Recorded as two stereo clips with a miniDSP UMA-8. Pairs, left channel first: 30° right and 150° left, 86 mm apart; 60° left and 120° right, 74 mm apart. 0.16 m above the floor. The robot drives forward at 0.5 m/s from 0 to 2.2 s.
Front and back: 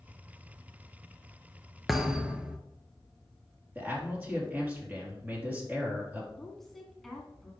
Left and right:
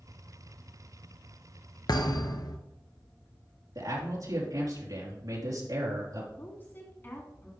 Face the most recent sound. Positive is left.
turn(degrees=55)